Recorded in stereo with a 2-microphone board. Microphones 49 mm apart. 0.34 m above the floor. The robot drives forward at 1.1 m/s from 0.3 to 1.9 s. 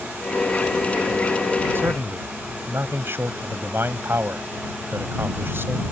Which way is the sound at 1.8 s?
55° right (ahead or behind).